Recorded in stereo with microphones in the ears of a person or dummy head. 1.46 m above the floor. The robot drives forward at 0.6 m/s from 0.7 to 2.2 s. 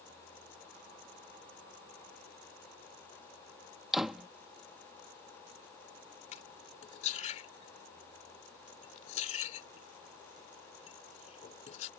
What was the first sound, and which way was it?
A door slam, centre (ahead or behind).